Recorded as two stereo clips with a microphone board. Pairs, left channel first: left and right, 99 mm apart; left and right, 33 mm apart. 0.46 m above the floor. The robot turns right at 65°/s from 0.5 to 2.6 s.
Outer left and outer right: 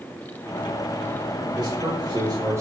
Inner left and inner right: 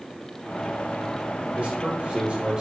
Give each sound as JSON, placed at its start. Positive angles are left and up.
{"t": 1.6, "sound": "a man speaking", "azimuth_deg": -110, "distance_m": 1.4}